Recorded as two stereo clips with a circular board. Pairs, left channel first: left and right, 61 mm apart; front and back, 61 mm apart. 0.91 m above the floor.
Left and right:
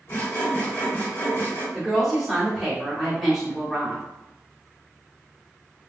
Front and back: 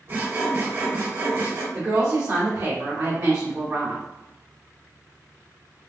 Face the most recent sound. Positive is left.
turn(degrees=180)